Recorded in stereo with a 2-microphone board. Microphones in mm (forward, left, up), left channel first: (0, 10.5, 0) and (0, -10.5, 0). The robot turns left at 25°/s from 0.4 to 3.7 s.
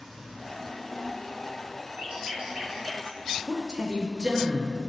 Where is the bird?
65° right (ahead or behind), 1.8 m; by 3.2 s 35° right (ahead or behind), 1.8 m.